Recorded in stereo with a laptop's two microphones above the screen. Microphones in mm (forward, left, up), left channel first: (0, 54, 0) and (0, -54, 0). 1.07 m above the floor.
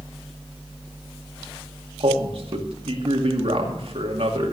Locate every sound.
2.0 s a man speaking: 65° right (ahead or behind), 2 m